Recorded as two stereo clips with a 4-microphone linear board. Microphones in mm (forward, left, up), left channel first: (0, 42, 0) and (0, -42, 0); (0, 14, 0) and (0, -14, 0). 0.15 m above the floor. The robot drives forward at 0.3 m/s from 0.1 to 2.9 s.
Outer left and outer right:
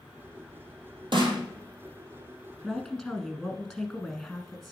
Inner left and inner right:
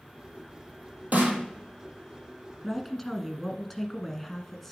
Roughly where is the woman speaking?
Centre.